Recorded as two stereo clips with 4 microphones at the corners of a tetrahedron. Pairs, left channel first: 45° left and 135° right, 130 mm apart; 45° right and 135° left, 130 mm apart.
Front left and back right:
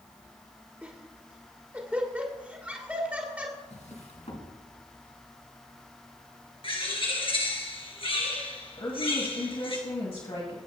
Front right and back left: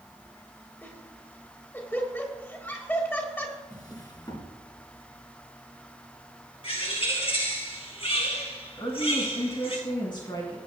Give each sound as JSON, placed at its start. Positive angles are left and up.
{"t": 0.8, "sound": "laughter", "azimuth_deg": -80, "distance_m": 1.5}
{"t": 3.7, "sound": "a drawer", "azimuth_deg": 10, "distance_m": 2.5}
{"t": 6.6, "sound": "a bird", "azimuth_deg": -5, "distance_m": 2.5}
{"t": 8.8, "sound": "a woman speaking", "azimuth_deg": 5, "distance_m": 2.0}